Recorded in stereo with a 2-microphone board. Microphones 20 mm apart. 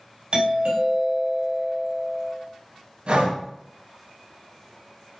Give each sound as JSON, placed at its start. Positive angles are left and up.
{"t": 0.3, "sound": "a doorbell", "side_deg": -55, "distance_m": 3.5}
{"t": 3.1, "sound": "breathing", "side_deg": -70, "distance_m": 4.0}